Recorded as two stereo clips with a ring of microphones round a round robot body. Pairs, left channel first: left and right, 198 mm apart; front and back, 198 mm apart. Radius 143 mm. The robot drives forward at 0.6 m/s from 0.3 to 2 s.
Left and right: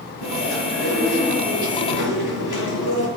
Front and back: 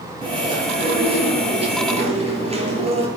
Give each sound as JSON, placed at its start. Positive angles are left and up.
{"t": 0.2, "sound": "chewing", "azimuth_deg": 115, "distance_m": 8.0}